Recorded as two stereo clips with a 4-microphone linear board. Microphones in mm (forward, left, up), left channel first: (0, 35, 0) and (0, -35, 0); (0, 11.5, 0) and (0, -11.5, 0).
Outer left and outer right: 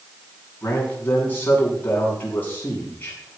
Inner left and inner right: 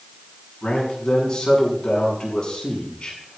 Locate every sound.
0.6 s a man speaking: 30° left (ahead or behind), 7 m